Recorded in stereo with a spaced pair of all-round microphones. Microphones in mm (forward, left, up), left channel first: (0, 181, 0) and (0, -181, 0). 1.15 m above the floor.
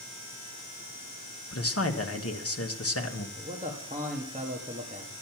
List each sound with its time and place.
1.5 s a man speaking: 40° left (ahead or behind), 1.2 m
3.4 s a man speaking: 20° right (ahead or behind), 1.5 m